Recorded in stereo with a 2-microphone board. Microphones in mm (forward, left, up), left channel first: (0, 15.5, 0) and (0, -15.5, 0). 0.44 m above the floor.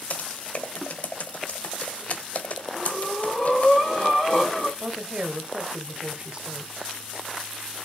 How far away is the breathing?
About 4 m.